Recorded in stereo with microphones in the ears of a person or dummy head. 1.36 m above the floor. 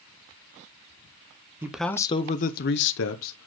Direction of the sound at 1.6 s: 10° right (ahead or behind).